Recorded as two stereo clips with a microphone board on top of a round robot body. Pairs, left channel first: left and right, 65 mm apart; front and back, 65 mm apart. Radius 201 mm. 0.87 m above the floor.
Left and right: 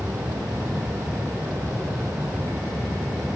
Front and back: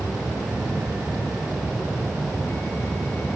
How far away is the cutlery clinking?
I don't hear cutlery clinking.